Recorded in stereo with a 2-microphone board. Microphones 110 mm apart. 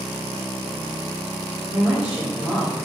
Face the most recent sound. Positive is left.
turn(degrees=-10)  # may be behind; listen again after turning